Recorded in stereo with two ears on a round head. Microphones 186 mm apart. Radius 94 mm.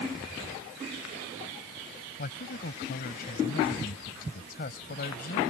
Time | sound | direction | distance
2.2 | a man speaking | 50° left (ahead or behind) | ?